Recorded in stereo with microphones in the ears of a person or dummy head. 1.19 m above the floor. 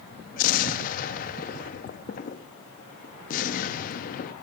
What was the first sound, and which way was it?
An explosion, 40° left (ahead or behind).